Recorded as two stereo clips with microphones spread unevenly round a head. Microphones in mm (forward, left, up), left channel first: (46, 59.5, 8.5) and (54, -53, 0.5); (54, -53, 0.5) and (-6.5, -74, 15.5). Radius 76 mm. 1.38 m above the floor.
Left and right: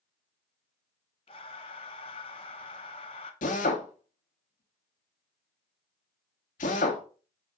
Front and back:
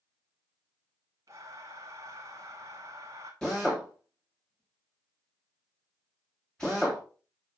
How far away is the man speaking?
I don't hear a man speaking.